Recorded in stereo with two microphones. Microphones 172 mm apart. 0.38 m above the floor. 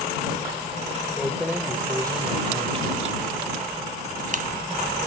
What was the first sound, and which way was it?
Keys jangling, centre (ahead or behind).